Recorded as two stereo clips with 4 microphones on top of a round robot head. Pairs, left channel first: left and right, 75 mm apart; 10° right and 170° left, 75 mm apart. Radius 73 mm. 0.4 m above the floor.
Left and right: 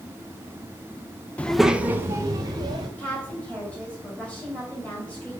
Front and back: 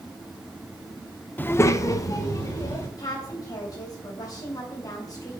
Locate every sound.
1.4 s a child speaking: 35° left, 0.6 m; by 2.9 s 50° right, 1.6 m
3.0 s a woman speaking: 20° left, 3 m